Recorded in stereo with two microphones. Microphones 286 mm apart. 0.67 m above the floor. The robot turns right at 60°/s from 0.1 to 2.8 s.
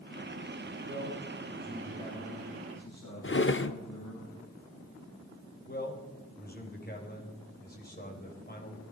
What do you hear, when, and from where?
0.8 s a man speaking: 55° right, 5.5 m; by 4.2 s 65° left, 5.5 m
3.2 s a drawer: 45° left (ahead or behind), 0.6 m
5.7 s a man speaking: 30° left (ahead or behind), 3.5 m